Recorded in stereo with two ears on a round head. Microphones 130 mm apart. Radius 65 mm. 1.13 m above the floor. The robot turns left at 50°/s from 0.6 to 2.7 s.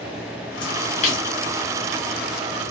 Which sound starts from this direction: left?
A splash, at 0.6 s.